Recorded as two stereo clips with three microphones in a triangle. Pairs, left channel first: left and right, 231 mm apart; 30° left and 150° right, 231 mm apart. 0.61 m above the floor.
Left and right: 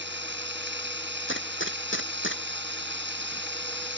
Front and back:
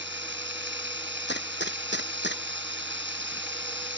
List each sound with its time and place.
0.0 s running water: 120° right
1.3 s a gunshot: 65° left